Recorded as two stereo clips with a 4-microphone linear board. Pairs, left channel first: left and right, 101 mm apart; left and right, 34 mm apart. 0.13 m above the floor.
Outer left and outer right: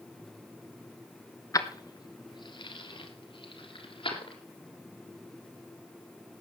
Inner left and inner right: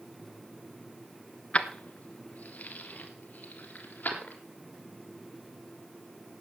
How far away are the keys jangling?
About 1.2 m.